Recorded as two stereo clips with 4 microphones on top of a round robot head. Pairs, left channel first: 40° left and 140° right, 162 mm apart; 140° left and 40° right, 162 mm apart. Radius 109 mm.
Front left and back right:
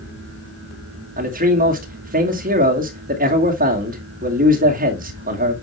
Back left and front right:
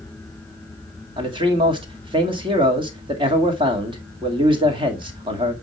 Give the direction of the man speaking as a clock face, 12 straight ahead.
3 o'clock.